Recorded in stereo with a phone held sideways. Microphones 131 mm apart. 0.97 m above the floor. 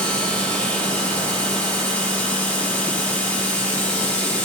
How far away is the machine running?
About 6 m.